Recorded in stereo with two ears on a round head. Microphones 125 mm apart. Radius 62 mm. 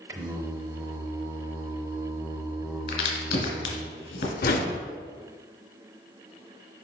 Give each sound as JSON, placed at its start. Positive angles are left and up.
{"t": 0.1, "sound": "singing", "side_deg": -25, "distance_m": 0.6}
{"t": 2.9, "sound": "a crack", "side_deg": 70, "distance_m": 1.9}
{"t": 4.4, "sound": "a whoosh", "side_deg": 65, "distance_m": 0.8}